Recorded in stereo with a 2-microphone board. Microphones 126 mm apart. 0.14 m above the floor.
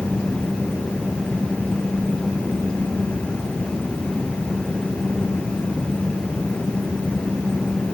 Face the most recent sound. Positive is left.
No sound to turn to.